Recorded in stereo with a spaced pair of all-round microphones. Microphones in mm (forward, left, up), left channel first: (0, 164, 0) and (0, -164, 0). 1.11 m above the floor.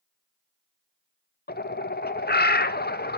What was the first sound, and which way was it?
A bird, 30° left (ahead or behind).